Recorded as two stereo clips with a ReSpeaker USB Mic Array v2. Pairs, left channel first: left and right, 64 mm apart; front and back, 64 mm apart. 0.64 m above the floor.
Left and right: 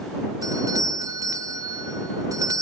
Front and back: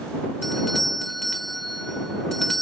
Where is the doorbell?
85° right.